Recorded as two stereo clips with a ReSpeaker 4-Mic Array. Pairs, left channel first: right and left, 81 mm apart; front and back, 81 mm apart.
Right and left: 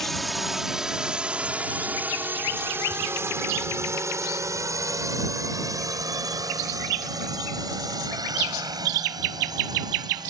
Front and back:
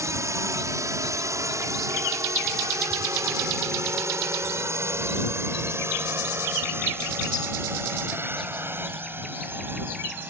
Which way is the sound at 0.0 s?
175° right.